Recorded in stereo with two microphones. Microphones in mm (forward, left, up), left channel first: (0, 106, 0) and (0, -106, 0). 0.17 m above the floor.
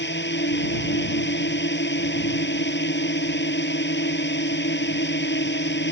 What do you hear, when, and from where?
0.0 s a drone: 55° left (ahead or behind)